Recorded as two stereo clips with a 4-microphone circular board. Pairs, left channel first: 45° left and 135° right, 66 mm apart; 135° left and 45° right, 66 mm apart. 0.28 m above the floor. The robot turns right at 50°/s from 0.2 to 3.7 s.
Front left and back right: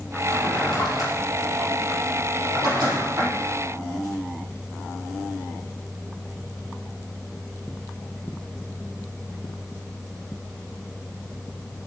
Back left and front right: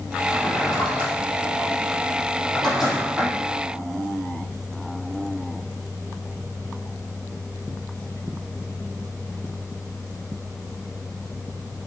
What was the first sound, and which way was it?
A drawer, 105° left.